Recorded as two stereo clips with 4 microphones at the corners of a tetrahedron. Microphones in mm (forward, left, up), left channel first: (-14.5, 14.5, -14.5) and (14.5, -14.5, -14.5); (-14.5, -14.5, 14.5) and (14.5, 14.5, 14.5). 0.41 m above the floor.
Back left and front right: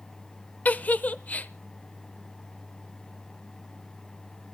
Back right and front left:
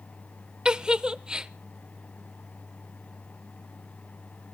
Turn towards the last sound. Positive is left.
turn(degrees=105)